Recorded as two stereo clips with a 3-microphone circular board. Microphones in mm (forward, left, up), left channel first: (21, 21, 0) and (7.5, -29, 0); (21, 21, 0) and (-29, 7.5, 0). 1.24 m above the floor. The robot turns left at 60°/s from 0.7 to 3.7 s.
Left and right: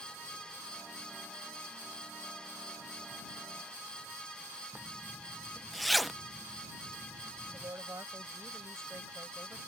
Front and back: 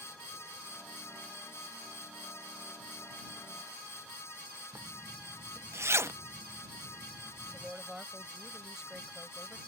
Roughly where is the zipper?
Behind.